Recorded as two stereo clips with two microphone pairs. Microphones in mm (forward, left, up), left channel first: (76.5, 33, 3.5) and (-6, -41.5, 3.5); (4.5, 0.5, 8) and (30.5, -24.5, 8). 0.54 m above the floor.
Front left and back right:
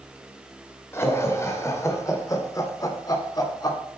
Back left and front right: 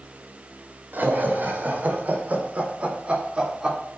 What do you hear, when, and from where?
0.9 s laughter: 20° right, 2.5 m; by 3.8 s 10° left, 1.8 m